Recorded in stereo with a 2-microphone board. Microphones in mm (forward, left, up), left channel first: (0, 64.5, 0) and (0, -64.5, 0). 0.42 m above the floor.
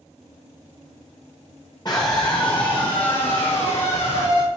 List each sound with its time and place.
1.9 s a scream: 35° left (ahead or behind), 1.8 m; by 4.5 s 55° left (ahead or behind), 3 m